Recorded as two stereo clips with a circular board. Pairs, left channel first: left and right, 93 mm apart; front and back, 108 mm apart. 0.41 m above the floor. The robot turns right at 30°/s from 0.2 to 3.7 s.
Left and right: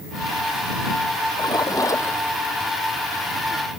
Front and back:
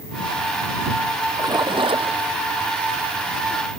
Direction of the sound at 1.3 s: 125° left.